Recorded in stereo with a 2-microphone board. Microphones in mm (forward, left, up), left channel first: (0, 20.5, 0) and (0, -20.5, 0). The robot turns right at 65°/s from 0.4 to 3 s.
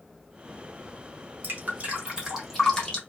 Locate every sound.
1.4 s dripping: 55° right (ahead or behind), 1.0 m; by 3.0 s 25° left (ahead or behind), 1.0 m